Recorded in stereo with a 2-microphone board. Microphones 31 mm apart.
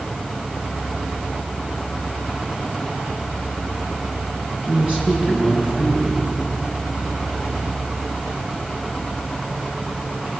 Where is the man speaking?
30° right (ahead or behind), 8 m.